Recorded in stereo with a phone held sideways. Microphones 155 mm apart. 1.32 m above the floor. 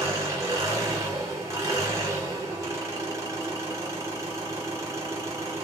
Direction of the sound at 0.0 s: 20° right (ahead or behind).